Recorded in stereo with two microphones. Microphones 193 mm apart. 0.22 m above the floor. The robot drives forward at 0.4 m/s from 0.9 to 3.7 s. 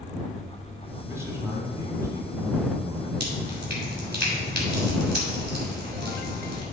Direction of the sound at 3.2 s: 60° right (ahead or behind).